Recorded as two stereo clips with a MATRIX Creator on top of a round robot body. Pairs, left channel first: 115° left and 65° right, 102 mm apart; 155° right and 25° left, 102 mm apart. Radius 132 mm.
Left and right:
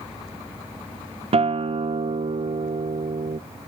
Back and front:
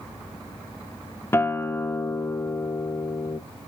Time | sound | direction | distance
1.3 | a guitar | 90° right | 0.9 m